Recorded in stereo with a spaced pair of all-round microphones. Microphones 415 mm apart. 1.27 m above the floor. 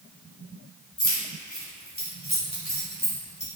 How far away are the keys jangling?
About 2.5 m.